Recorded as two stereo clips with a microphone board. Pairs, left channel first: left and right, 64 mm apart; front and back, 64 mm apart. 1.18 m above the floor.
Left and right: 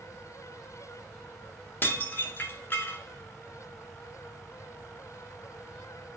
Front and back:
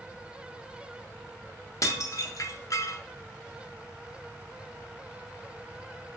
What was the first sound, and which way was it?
Dishes clattering, 35° left.